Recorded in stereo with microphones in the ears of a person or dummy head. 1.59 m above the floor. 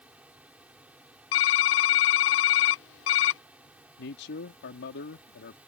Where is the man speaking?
65° left (ahead or behind).